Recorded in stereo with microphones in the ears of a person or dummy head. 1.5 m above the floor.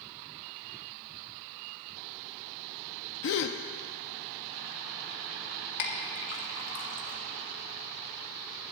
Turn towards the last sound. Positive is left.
turn(degrees=60)  # may be behind; listen again after turning